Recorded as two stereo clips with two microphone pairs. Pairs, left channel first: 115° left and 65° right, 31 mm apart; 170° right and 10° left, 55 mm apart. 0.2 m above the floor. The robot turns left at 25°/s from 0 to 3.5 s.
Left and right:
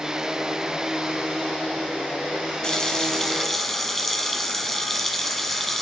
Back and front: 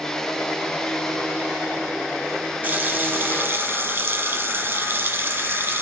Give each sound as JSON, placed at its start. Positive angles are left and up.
{"t": 2.6, "sound": "a running tap", "azimuth_deg": 55, "distance_m": 1.2}